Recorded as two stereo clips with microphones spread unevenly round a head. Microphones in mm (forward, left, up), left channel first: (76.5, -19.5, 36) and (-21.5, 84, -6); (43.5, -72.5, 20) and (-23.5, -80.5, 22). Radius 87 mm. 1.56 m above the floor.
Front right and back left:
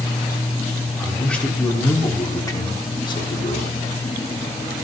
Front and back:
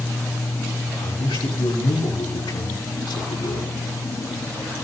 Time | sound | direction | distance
1.0 | a man speaking | 40° left | 5 m